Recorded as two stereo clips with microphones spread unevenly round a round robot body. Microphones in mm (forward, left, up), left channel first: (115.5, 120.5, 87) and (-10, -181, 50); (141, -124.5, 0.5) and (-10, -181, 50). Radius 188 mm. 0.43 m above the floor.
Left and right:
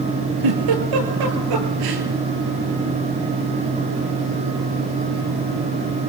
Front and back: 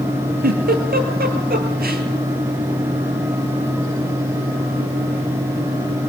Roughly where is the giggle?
Behind right.